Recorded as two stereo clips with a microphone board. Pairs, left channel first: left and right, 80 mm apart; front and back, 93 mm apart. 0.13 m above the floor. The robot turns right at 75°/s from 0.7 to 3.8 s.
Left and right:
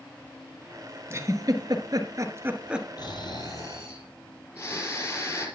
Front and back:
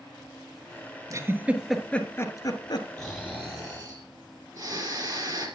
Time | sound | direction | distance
1.1 | a giggle | 140° right | 1.4 m
3.0 | snoring | 85° left | 4 m